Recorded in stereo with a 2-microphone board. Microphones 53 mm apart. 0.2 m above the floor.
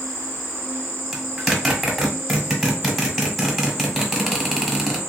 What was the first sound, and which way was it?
An insect, 60° left (ahead or behind).